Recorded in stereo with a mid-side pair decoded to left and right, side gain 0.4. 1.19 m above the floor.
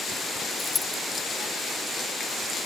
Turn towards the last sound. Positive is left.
turn(degrees=30)